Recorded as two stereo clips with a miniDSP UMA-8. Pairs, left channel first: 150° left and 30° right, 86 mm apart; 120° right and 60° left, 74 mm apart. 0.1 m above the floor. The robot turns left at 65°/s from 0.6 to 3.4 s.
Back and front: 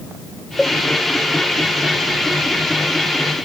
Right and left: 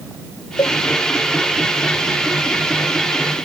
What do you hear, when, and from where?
0.6 s a cowbell: 120° right; by 0.8 s 130° right